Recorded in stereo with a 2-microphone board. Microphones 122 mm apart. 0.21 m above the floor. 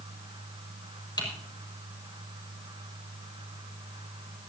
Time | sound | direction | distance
1.2 | typing on a keyboard | 35° left (ahead or behind) | 6 m